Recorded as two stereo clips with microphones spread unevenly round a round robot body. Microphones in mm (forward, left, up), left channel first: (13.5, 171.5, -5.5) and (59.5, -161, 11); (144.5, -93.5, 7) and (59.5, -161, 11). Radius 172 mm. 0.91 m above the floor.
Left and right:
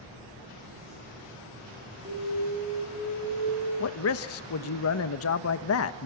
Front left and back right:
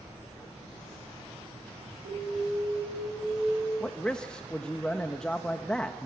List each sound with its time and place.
2.0 s an alarm: 150° right, 10 m
3.8 s a man speaking: 120° left, 1.0 m